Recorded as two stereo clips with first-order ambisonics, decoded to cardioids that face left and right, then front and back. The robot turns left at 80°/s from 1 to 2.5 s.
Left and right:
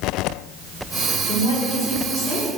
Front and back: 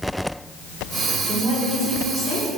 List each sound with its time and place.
1.3 s a woman speaking: 105° left, 4 m; by 2.5 s 10° left, 4 m